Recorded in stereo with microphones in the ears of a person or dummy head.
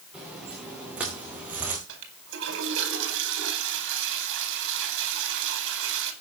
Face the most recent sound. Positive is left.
turn(degrees=-65)  # may be behind; listen again after turning